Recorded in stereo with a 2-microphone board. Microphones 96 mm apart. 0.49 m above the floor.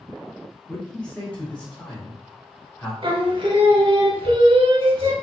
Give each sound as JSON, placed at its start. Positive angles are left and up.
{"t": 0.7, "sound": "a man speaking", "side_deg": 10, "distance_m": 1.1}
{"t": 3.0, "sound": "singing", "side_deg": -65, "distance_m": 0.8}